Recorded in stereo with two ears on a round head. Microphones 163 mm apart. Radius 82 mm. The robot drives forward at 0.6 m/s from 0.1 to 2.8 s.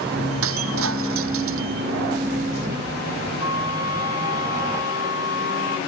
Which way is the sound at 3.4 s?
25° right (ahead or behind).